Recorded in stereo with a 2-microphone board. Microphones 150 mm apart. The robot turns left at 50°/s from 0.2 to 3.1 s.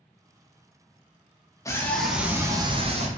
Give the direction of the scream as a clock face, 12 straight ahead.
11 o'clock.